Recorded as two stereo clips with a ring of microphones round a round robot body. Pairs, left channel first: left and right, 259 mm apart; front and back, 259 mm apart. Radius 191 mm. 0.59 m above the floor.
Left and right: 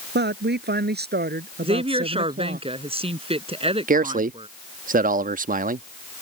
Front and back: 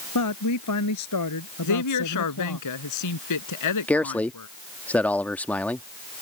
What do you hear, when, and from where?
0.1 s a woman speaking: 40° right; by 2.6 s 35° right
1.6 s a woman speaking: 20° right
3.9 s a man speaking: 80° right